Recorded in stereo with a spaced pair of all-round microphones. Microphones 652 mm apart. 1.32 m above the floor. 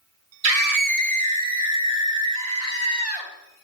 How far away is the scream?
About 0.5 m.